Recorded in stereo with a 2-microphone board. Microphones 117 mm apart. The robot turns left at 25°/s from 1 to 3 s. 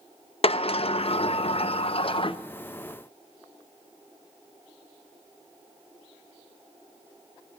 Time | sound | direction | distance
0.4 | a sliding door | 100° left | 0.5 m